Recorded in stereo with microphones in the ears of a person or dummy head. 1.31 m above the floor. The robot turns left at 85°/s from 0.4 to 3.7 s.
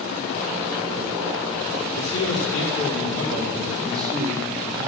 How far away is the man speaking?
About 2.5 m.